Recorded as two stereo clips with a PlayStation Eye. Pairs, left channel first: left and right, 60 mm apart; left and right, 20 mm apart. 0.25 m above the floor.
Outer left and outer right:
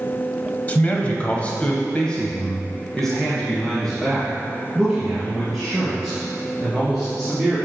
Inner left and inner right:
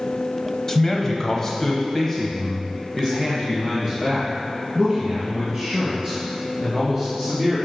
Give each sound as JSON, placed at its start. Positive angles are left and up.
{"t": 0.7, "sound": "a man speaking", "side_deg": 25, "distance_m": 1.0}